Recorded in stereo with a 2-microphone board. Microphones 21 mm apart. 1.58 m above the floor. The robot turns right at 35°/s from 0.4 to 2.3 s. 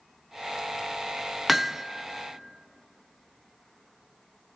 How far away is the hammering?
About 0.5 m.